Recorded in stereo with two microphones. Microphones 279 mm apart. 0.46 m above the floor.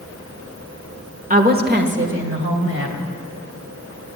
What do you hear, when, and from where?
1.3 s a woman speaking: 30° right (ahead or behind), 1.2 m; by 3.1 s 55° right (ahead or behind), 2.5 m